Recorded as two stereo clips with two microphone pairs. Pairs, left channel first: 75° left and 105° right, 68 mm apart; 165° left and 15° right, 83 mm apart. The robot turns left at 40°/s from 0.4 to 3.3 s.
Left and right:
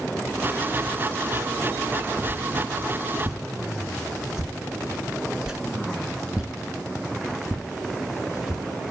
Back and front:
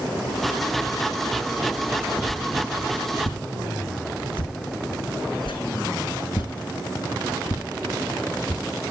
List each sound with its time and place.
2.3 s a whoosh: 145° right, 1.3 m; by 8.6 s 175° left, 1.3 m